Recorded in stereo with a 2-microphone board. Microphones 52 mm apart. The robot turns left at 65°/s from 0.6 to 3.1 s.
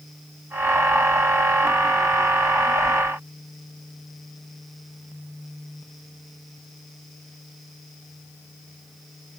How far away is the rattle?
No rattle in this recording.